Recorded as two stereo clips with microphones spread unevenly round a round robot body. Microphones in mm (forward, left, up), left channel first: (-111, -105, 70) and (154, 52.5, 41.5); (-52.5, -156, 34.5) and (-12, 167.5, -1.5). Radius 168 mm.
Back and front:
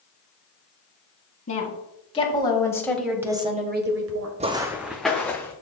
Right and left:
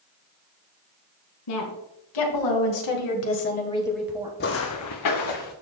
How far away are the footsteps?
About 0.7 m.